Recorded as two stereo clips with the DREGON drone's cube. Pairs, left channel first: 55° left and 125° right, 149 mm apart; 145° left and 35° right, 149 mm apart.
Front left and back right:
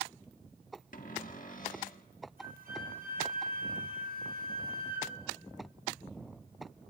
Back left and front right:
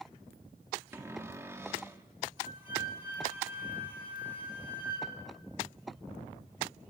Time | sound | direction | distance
0.9 | a cupboard door | 35° left | 1.4 m
2.4 | a flute | 115° right | 8 m